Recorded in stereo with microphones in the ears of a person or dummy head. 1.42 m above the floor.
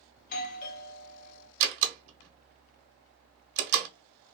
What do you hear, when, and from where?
0.2 s a doorbell: 50° left (ahead or behind), 0.6 m
1.6 s a door slam: 55° right (ahead or behind), 0.8 m